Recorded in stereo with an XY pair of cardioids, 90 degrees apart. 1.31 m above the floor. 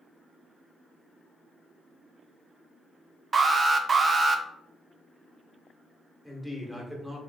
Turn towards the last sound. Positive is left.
turn(degrees=-5)